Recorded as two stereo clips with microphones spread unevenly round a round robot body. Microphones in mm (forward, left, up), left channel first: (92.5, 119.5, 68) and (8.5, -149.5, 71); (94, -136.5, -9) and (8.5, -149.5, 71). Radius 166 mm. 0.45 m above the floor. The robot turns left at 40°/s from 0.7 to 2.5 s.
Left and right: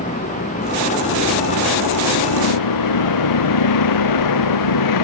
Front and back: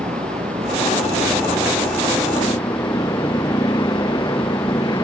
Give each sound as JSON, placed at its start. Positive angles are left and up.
{"t": 0.0, "sound": "a vehicle", "azimuth_deg": 140}